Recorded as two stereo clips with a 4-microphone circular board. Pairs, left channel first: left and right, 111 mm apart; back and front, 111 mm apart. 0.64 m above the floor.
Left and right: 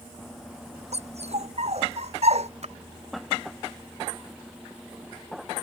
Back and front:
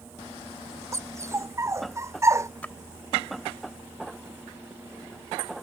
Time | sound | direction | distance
0.9 | a dog barking | 65° right | ?
2.6 | a splash | 105° right | ?